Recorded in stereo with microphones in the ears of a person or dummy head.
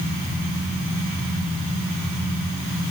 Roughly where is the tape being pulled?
No tape being pulled in this recording.